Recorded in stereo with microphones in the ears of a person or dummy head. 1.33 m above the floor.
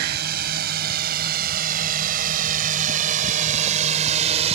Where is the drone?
60° right (ahead or behind); by 4.6 s 35° right (ahead or behind).